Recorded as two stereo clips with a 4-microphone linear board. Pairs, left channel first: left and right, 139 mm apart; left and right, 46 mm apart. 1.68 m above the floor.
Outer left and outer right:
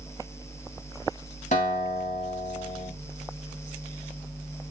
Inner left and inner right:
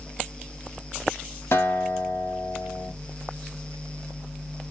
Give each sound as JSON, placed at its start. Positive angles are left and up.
{"t": 1.5, "sound": "a guitar", "side_deg": 75, "distance_m": 3.0}